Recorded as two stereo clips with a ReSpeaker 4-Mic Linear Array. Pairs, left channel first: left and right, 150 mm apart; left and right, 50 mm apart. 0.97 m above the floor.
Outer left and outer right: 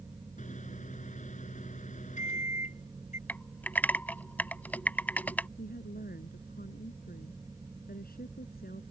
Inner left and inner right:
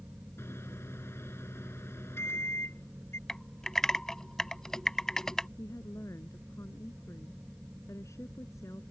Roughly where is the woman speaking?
Left.